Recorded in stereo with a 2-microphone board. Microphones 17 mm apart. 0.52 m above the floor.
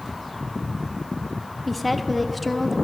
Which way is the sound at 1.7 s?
5° right (ahead or behind).